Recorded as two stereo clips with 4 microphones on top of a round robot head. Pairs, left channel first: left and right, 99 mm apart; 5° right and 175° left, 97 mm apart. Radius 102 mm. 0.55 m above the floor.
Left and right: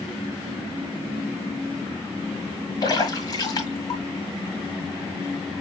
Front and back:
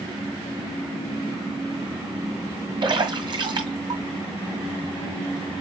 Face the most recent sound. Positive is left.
turn(degrees=135)